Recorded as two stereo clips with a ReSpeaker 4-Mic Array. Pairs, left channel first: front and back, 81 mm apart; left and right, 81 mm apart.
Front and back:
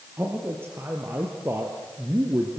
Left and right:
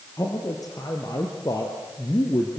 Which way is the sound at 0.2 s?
125° left.